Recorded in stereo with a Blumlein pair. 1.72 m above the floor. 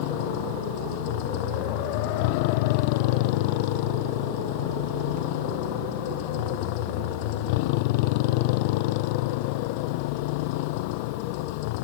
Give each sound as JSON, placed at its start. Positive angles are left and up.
{"t": 0.0, "sound": "a motorcycle", "azimuth_deg": 45}